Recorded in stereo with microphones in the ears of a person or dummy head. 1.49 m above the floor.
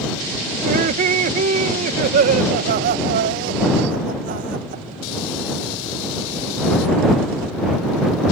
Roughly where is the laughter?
Right.